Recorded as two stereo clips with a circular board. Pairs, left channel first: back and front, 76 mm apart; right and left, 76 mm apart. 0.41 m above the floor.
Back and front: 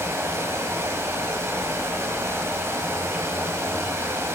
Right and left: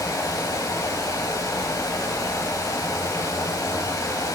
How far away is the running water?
About 1.2 m.